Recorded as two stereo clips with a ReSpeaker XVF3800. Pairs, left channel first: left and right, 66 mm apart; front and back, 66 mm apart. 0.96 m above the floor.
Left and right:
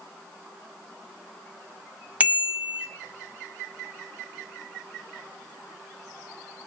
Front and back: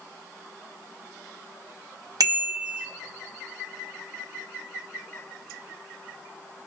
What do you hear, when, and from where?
2.2 s a bicycle bell: 160° right, 2 m